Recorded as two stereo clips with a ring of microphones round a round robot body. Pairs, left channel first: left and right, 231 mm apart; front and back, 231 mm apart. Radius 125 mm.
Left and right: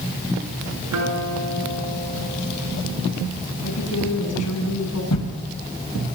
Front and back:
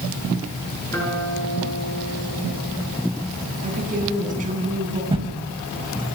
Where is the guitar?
80° right, 6.5 m.